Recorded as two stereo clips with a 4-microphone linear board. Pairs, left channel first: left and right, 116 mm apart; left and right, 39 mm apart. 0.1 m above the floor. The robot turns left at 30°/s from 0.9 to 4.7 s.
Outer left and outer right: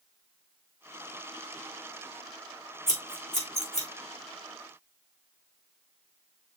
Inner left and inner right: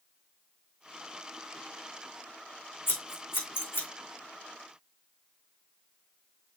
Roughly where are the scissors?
Left.